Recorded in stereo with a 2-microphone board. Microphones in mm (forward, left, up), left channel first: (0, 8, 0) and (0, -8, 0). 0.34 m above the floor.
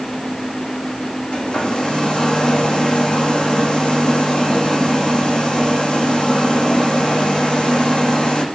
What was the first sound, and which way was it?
A hair dryer, 65° left (ahead or behind).